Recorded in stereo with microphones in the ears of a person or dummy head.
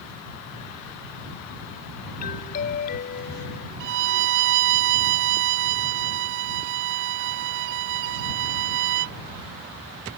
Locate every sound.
2.2 s a doorbell: 40° left (ahead or behind)
3.8 s a violin: 70° right (ahead or behind)